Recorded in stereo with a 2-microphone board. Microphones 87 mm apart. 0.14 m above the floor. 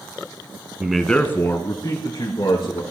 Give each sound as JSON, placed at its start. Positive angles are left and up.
{"t": 0.8, "sound": "a man speaking", "side_deg": -10, "distance_m": 1.1}